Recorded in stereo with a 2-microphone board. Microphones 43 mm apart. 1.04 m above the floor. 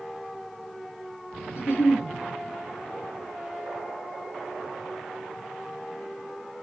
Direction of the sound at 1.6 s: 85° left.